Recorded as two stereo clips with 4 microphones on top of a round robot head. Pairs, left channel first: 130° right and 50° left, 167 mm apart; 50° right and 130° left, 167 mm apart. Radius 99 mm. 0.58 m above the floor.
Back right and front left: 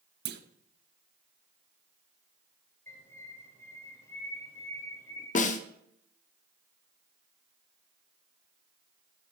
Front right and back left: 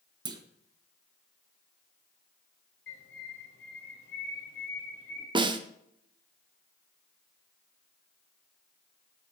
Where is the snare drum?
170° right, 0.7 m.